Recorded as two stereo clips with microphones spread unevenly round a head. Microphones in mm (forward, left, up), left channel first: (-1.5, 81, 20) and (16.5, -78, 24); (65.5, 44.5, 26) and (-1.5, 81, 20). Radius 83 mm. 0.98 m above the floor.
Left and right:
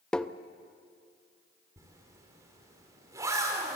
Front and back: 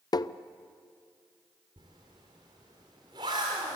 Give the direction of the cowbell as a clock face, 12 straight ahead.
I don't hear a cowbell.